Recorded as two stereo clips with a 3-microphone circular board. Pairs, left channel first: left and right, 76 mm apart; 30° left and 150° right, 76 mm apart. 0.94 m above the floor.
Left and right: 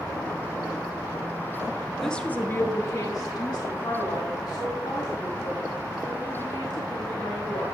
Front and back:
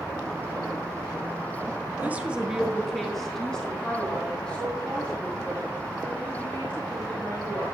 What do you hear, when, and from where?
2.0 s a woman speaking: 170° left, 0.8 m; by 7.7 s 100° left, 5 m